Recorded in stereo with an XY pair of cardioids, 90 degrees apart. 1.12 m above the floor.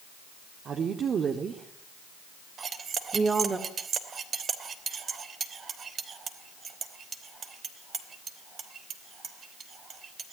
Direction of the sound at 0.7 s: 65° right.